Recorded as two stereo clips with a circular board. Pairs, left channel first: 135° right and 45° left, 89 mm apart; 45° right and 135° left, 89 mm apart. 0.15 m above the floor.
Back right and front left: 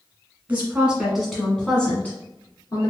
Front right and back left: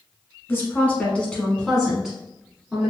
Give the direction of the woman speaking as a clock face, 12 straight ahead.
12 o'clock.